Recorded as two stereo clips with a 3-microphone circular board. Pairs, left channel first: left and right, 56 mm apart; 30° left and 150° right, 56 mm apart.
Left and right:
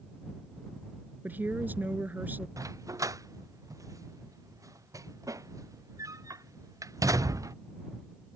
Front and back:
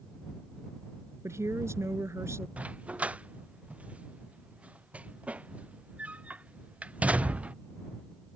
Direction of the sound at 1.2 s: 140° right.